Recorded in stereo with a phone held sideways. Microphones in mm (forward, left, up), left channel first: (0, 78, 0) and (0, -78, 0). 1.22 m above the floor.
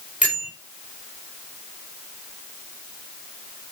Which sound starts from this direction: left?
A bell, at 0.2 s.